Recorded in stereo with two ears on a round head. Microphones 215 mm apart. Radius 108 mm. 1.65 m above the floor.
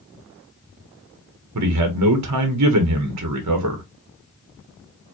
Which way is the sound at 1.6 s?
80° right.